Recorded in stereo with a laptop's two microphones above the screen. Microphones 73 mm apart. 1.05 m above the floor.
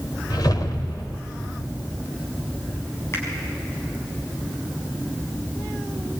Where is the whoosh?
70° left (ahead or behind), 1.5 m.